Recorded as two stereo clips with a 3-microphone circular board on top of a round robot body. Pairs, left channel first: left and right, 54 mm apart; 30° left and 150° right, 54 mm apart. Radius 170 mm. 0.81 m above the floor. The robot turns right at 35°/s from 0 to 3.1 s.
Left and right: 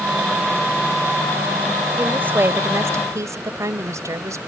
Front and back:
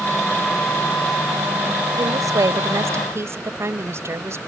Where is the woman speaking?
155° right; by 4.4 s 115° right.